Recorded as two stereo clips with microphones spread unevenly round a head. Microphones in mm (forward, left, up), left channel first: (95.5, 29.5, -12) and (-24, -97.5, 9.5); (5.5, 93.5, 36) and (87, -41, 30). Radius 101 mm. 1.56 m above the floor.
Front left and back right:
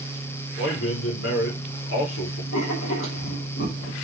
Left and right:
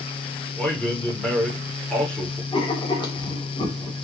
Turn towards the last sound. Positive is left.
turn(degrees=60)